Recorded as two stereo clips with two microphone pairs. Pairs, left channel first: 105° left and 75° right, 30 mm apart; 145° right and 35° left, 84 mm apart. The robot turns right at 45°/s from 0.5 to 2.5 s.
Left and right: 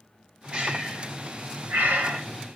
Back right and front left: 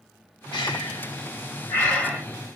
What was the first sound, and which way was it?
Breathing, 135° right.